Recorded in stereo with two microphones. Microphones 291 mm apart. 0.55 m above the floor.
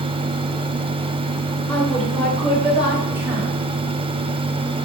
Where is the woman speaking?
5° left (ahead or behind), 2.5 m; by 3.5 s 10° right (ahead or behind), 3 m.